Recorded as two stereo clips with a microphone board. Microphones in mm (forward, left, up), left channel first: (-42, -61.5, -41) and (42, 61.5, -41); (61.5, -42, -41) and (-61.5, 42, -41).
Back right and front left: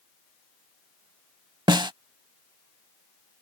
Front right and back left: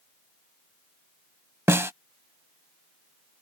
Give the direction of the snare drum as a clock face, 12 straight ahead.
9 o'clock.